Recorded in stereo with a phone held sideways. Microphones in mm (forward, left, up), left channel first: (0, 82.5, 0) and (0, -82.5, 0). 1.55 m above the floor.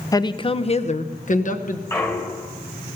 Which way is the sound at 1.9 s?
15° left (ahead or behind).